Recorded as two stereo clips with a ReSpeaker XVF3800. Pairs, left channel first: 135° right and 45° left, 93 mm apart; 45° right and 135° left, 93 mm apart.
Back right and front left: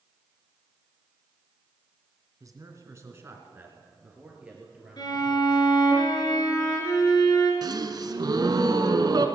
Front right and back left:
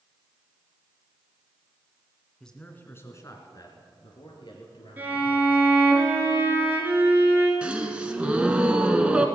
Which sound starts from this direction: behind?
A violin, at 5.0 s.